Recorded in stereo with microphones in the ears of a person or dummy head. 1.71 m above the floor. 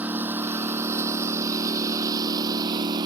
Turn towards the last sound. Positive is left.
turn(degrees=-20)  # may be behind; listen again after turning